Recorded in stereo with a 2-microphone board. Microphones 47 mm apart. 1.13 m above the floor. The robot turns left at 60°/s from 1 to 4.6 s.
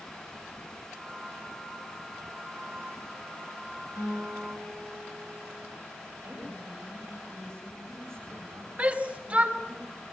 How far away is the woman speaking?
About 8 m.